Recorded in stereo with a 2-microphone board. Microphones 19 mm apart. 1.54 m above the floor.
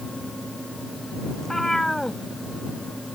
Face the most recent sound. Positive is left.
turn(degrees=25)  # may be behind; listen again after turning